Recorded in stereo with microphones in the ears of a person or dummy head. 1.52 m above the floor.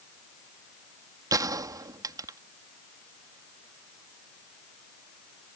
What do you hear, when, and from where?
1.3 s a gunshot: 15° right (ahead or behind)